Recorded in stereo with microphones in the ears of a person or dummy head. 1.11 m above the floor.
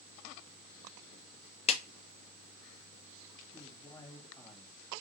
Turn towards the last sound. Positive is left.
turn(degrees=20)  # may be behind; listen again after turning